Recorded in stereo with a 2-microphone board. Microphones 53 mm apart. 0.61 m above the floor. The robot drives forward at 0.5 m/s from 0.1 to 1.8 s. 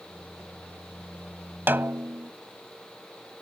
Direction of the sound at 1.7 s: 45° right (ahead or behind).